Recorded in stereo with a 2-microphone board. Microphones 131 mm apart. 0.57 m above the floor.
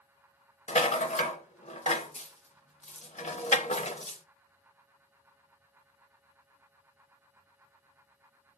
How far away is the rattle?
About 0.6 m.